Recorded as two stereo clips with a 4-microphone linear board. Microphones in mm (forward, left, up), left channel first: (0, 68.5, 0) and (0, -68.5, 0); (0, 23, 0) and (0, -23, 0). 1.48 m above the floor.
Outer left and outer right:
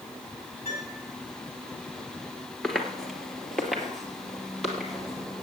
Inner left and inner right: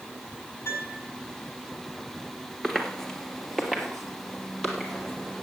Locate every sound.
0.7 s a piano: 50° left (ahead or behind), 6 m
2.6 s footsteps: 5° left (ahead or behind), 1.7 m; by 5.4 s centre (ahead or behind), 3 m